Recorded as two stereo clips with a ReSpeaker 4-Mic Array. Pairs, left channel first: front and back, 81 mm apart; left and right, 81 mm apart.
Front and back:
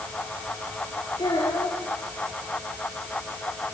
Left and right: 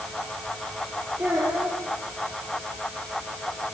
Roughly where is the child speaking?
Ahead right.